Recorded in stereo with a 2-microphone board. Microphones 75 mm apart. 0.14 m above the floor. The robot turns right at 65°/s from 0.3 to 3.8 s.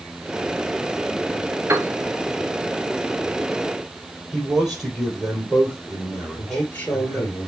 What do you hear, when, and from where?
1.7 s a piano: 40° right (ahead or behind), 0.9 m; by 1.9 s 35° right (ahead or behind), 0.9 m
4.3 s a man speaking: 5° right (ahead or behind), 3.5 m
6.4 s a man speaking: 25° left (ahead or behind), 2.0 m